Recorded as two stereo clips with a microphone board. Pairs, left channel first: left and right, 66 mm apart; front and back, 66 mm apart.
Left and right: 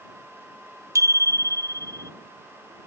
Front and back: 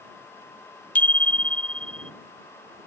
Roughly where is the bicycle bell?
Ahead right.